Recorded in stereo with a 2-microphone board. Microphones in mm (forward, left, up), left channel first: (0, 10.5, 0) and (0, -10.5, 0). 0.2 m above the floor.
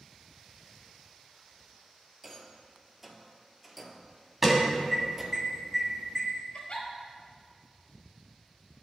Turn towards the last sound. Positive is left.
turn(degrees=60)  # may be behind; listen again after turning